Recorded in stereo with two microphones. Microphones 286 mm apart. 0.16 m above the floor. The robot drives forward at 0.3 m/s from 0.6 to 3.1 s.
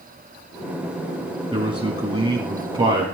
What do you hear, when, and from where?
1.5 s a man speaking: 20° right (ahead or behind), 1.2 m; by 3.0 s 15° right (ahead or behind), 1.3 m